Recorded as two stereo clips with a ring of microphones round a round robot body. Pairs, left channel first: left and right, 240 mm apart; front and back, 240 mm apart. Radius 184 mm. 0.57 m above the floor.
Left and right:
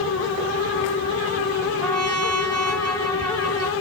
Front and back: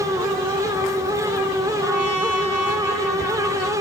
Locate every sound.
1.8 s a trumpet: 85° right, 10 m